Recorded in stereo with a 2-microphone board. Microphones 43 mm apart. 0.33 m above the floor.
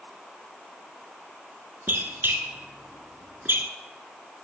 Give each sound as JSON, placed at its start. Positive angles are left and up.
{"t": 1.9, "sound": "a squeak", "side_deg": -60, "distance_m": 0.8}